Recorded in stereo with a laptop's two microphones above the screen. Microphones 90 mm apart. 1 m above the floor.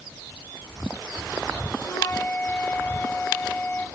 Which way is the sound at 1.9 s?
30° left (ahead or behind).